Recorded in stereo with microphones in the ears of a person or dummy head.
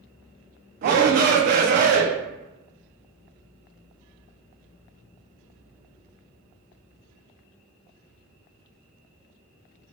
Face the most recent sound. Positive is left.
turn(degrees=-45)  # may be behind; listen again after turning